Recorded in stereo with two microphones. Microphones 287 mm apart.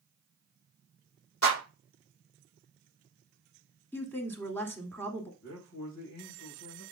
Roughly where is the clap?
Left.